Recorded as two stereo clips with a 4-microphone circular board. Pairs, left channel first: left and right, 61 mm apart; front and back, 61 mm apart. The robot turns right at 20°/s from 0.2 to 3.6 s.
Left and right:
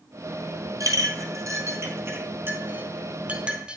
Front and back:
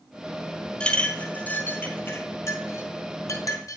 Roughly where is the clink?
Right.